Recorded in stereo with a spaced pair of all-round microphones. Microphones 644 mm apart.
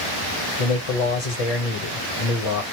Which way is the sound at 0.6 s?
60° left (ahead or behind).